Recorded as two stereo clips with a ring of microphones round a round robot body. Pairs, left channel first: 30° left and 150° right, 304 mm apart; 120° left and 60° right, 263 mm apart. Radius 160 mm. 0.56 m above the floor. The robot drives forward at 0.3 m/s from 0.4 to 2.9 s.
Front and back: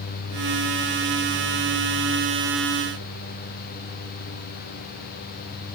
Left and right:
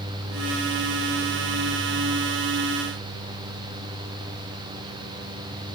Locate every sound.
Only background noise.